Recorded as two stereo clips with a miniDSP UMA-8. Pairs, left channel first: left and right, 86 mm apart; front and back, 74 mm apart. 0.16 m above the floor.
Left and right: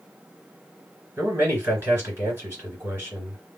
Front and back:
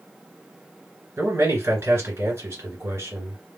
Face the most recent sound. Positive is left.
turn(degrees=-145)